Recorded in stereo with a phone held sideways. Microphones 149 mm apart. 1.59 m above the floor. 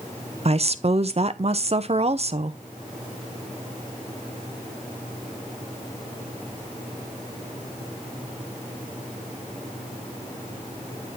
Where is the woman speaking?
45° right (ahead or behind), 0.5 m.